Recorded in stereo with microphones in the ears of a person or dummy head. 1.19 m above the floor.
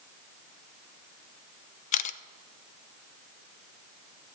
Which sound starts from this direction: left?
A camera shutter, at 1.9 s.